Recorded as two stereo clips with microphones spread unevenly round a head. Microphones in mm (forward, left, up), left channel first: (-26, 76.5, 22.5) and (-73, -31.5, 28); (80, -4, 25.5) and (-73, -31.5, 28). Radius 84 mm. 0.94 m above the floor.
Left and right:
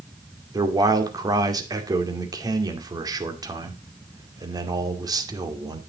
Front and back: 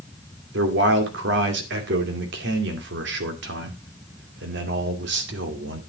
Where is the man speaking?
170° right, 2.5 m.